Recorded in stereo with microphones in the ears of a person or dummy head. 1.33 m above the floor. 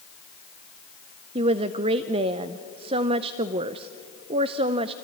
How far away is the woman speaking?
About 0.5 m.